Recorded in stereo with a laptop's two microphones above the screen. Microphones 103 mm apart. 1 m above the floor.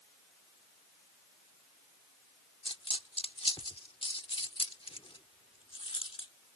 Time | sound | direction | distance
2.6 | a dropped coin | 65° left (ahead or behind) | ?